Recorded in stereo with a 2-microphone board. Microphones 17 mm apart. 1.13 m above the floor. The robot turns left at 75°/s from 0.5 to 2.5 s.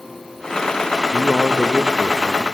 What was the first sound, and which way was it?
A man speaking, 100° left.